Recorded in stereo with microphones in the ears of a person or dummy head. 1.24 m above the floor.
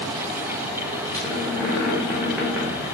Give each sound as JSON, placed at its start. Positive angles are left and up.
{"t": 1.1, "sound": "a squeak", "side_deg": -5, "distance_m": 1.3}